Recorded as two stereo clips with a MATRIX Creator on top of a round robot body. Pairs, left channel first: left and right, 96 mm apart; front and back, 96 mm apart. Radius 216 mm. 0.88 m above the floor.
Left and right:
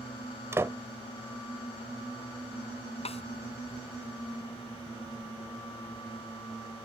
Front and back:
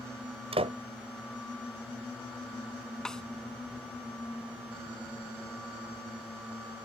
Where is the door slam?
155° right.